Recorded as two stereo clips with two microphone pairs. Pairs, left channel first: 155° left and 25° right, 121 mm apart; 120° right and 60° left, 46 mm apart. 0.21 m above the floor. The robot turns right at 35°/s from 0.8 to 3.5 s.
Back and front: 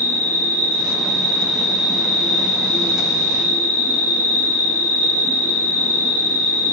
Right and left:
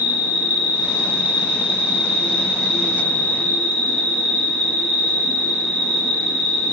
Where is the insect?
95° left, 0.8 m; by 6.7 s 170° right, 0.8 m.